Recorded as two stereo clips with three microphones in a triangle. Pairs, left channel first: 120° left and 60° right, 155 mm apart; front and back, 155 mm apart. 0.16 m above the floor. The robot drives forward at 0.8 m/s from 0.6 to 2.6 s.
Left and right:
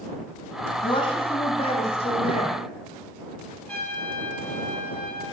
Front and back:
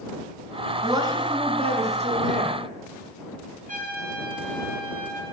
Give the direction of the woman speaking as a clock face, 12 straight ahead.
8 o'clock.